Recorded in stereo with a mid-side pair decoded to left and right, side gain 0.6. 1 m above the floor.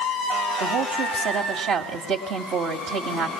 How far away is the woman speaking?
About 2.5 m.